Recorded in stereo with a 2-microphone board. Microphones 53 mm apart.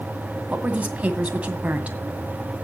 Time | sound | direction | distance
0.5 | a woman speaking | 25° right (ahead or behind) | 2 m